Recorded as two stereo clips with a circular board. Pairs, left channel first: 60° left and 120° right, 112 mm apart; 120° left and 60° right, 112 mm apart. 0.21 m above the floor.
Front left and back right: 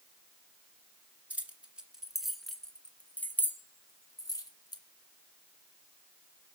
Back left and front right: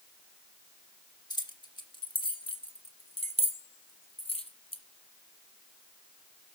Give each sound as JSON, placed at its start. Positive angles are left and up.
{"t": 1.3, "sound": "keys jangling", "azimuth_deg": 165, "distance_m": 2.0}